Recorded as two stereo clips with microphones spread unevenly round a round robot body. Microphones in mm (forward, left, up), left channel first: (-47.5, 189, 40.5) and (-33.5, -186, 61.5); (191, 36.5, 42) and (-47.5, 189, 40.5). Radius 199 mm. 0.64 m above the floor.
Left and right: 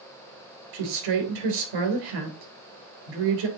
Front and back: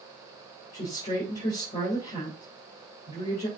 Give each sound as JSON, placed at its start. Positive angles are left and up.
{"t": 0.7, "sound": "a woman speaking", "azimuth_deg": -110, "distance_m": 3.0}